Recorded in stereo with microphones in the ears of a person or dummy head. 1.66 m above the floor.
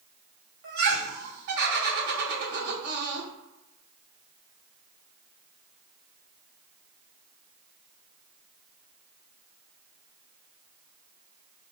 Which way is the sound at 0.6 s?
50° right (ahead or behind).